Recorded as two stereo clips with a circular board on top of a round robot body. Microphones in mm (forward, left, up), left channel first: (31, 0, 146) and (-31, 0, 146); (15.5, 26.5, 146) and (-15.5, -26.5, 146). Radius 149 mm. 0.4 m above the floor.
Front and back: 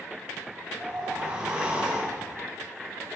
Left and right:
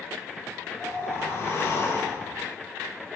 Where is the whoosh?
110° left, 1.6 m.